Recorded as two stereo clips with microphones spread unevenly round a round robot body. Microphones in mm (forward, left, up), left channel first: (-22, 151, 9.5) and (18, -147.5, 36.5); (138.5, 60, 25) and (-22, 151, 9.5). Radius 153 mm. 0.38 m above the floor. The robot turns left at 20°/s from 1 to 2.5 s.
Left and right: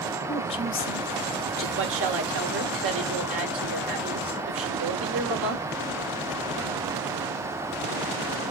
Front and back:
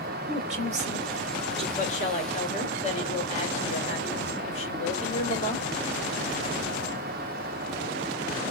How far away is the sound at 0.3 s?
About 1.3 m.